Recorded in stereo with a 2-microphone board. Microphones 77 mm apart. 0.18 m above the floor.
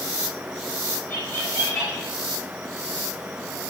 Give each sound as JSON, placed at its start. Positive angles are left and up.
{"t": 1.1, "sound": "laughter", "side_deg": 40, "distance_m": 8.0}